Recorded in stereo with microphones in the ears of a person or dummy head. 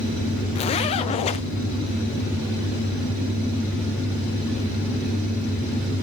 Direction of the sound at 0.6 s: 30° left (ahead or behind).